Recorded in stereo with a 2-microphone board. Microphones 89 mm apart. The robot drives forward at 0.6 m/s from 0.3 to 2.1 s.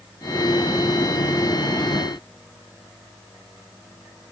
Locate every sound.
Only background noise.